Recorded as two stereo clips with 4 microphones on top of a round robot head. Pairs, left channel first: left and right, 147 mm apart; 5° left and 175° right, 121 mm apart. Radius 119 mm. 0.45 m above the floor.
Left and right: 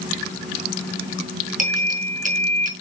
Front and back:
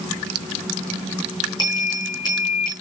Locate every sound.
1.6 s a bell: 60° right, 4.5 m